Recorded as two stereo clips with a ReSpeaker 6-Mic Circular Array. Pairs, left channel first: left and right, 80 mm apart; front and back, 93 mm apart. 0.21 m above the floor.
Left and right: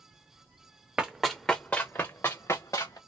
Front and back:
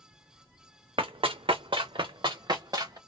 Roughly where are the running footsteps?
Behind.